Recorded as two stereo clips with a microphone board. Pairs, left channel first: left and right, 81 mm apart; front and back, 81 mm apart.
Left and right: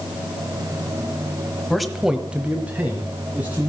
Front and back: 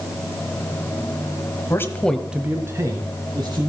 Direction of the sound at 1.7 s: 5° left.